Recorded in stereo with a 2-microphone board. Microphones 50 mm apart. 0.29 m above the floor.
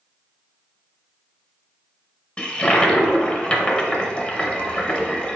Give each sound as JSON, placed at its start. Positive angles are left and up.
{"t": 2.4, "sound": "a toilet flushing", "side_deg": 20, "distance_m": 0.6}